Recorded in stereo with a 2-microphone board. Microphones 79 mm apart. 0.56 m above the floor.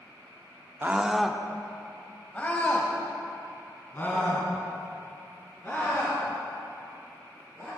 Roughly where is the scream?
Right.